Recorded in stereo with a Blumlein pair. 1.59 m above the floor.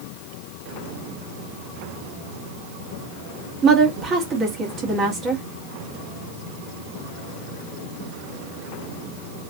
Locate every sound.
3.6 s a woman speaking: 25° right, 1.3 m